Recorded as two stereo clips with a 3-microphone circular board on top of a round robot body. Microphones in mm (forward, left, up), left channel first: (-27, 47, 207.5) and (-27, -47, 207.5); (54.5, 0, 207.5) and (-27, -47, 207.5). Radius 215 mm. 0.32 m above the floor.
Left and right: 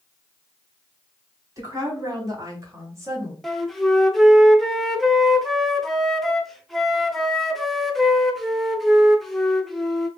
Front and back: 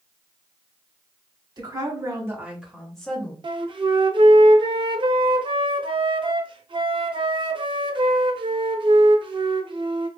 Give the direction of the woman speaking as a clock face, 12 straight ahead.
4 o'clock.